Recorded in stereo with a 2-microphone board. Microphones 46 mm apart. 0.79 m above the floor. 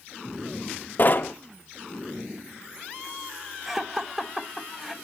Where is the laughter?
5° right (ahead or behind), 0.8 m.